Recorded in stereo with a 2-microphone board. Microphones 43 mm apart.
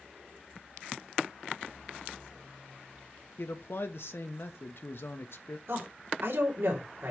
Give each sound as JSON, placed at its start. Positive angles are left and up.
{"t": 3.4, "sound": "a man speaking", "side_deg": 65, "distance_m": 1.0}
{"t": 5.7, "sound": "a woman speaking", "side_deg": -70, "distance_m": 3.5}